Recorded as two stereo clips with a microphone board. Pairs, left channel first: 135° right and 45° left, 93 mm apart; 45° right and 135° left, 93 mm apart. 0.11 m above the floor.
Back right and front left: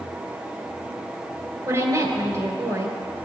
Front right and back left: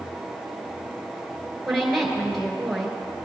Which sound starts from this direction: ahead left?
A woman speaking, at 1.7 s.